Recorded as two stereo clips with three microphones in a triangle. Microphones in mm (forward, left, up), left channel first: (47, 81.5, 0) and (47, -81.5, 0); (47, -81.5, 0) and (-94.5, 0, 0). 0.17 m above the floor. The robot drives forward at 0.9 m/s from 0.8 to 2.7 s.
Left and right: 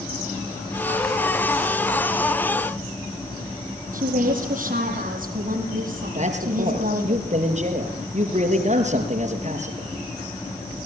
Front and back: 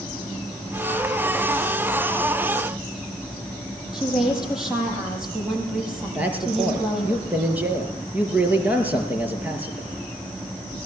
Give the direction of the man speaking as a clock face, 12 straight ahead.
4 o'clock.